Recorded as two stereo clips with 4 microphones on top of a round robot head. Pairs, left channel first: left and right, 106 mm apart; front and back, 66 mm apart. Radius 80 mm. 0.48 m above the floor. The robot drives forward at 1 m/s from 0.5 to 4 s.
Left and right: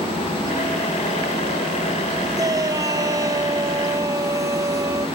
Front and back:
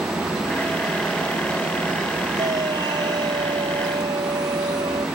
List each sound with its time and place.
2.4 s a shout: 145° right; by 5.1 s 150° right